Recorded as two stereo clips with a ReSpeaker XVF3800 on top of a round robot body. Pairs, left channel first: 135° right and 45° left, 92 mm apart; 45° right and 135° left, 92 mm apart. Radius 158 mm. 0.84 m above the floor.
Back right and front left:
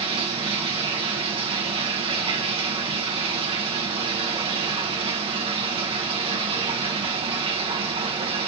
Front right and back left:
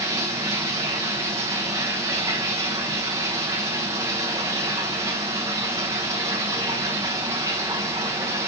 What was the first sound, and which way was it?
Running water, 75° left.